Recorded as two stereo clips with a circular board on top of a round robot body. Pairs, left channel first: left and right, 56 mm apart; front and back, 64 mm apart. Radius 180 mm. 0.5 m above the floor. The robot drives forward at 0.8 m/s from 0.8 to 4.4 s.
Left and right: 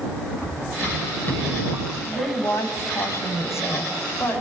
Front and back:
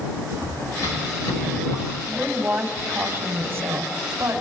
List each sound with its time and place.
0.4 s running footsteps: 40° left, 10 m
2.0 s a woman speaking: 110° left, 4.5 m; by 4.4 s 130° left, 5.5 m